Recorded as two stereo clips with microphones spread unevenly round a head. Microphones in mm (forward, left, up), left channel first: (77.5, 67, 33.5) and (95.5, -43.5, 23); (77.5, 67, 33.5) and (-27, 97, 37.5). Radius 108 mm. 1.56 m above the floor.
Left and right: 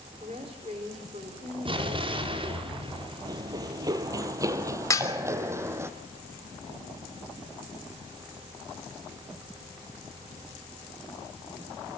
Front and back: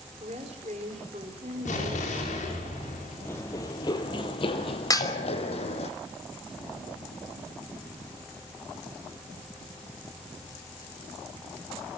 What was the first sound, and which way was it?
A woman speaking, 140° right.